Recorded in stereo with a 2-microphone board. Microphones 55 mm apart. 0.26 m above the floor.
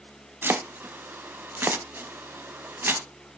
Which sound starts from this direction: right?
Chopping, at 0.4 s.